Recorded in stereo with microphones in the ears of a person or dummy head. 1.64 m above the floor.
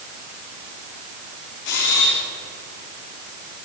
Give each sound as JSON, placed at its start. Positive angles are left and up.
{"t": 1.6, "sound": "a camera shutter", "side_deg": 65, "distance_m": 3.5}